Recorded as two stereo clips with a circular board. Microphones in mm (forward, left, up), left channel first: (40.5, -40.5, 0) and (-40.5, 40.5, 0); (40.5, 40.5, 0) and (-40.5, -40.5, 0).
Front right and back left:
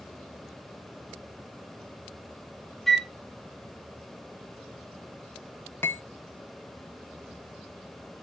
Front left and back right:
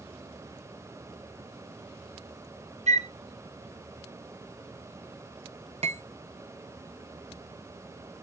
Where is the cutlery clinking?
115° right, 0.7 m.